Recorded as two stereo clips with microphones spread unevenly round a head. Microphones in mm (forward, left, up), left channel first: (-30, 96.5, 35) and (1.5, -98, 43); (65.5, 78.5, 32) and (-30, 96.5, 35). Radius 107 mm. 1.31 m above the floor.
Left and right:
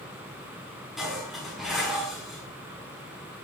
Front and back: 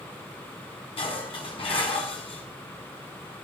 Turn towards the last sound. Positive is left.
turn(degrees=10)